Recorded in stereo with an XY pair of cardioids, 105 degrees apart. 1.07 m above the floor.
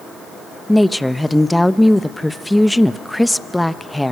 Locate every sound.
0.7 s a woman speaking: 5° left, 0.8 m